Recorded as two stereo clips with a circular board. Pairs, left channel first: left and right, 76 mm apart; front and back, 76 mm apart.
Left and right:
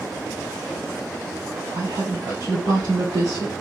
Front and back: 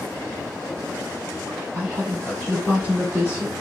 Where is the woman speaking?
110° right, 3 m.